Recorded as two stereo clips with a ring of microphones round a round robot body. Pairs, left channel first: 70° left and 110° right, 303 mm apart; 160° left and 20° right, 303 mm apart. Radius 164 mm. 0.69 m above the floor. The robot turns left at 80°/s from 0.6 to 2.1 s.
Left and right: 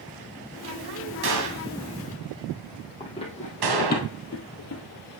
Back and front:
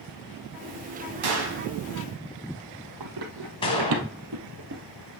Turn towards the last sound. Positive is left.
turn(degrees=30)